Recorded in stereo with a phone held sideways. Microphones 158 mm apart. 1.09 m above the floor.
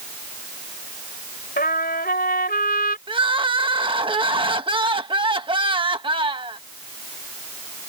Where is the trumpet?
75° left (ahead or behind).